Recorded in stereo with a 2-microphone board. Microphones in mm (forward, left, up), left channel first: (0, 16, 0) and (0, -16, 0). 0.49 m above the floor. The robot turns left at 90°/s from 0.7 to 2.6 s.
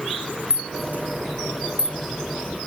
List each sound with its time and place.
0.5 s a rattle: 40° right (ahead or behind), 0.6 m; by 2.0 s 25° right (ahead or behind), 0.6 m